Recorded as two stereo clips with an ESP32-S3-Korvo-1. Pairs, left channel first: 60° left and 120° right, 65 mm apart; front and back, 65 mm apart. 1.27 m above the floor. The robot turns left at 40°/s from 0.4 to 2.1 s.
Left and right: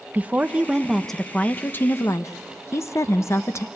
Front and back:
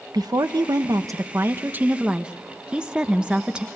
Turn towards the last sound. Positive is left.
turn(degrees=105)